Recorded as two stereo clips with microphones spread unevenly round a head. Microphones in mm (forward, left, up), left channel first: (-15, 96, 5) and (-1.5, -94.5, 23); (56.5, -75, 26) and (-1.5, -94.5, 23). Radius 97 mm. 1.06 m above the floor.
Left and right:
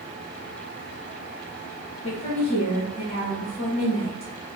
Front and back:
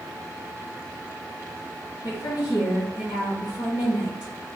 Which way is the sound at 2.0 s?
35° left.